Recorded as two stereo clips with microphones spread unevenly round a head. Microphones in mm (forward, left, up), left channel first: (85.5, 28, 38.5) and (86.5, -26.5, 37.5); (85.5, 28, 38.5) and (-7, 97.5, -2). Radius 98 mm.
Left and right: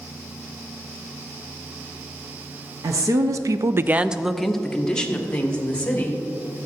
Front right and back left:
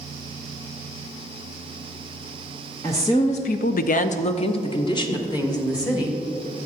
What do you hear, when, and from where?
2.8 s a woman speaking: 120° right, 1.0 m; by 6.2 s 25° left, 2.5 m